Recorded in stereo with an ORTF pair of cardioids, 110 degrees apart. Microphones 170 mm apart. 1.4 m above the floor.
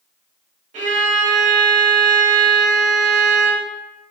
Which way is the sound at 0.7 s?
45° right.